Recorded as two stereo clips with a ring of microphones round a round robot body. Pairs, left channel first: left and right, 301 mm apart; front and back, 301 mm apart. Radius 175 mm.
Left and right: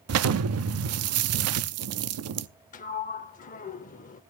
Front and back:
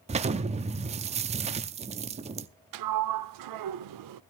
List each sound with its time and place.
0.1 s an explosion: 115° right, 0.6 m
2.7 s a sliding door: 160° left, 0.5 m